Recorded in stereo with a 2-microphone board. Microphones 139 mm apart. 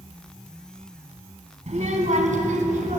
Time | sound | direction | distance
1.7 | a child speaking | 60° right (ahead or behind) | 1.7 m